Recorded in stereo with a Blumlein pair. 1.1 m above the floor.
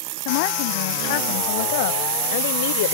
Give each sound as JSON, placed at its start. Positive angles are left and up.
{"t": 0.2, "sound": "a woman speaking", "azimuth_deg": 50}